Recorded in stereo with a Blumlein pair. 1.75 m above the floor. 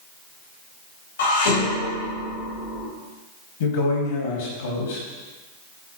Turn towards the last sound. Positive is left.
turn(degrees=60)